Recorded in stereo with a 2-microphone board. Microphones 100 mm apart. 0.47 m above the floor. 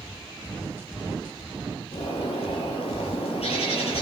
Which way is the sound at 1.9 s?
80° left.